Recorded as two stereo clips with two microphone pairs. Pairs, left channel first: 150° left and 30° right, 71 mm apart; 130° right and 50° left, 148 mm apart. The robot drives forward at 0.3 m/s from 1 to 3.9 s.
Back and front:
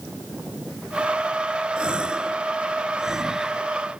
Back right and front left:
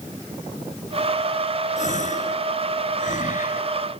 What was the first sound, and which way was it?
A gasp, 105° right.